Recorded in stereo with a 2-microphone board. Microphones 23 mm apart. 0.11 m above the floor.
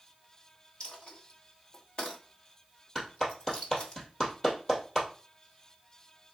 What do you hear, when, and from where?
0.8 s a dropped coin: 45° left (ahead or behind), 1.6 m
3.0 s a clap: 25° left (ahead or behind), 2 m